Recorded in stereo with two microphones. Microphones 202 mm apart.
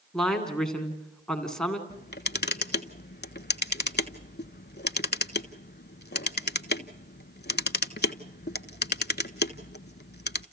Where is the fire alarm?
No fire alarm in this recording.